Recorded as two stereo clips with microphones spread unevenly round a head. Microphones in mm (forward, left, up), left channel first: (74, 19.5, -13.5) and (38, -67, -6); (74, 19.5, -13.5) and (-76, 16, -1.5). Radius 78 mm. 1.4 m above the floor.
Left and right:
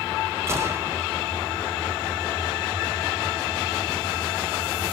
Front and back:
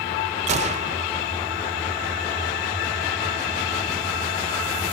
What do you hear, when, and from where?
0.5 s a gunshot: 165° right, 0.7 m